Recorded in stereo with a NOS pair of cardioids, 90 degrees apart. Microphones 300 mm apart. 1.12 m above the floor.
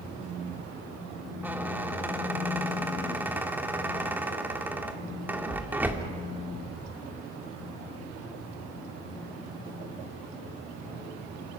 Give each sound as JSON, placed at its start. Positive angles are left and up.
{"t": 1.4, "sound": "a squeak", "azimuth_deg": -5, "distance_m": 1.9}